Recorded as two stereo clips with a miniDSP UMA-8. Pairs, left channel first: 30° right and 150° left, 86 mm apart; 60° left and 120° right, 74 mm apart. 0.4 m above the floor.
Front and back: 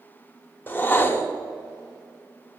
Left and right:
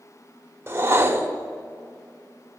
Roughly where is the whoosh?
Right.